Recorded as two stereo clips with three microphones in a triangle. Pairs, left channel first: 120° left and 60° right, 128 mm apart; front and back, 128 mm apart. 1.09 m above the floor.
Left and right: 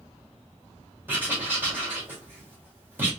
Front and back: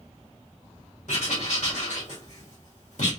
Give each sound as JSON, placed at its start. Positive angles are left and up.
{"t": 1.1, "sound": "writing", "azimuth_deg": 15, "distance_m": 1.9}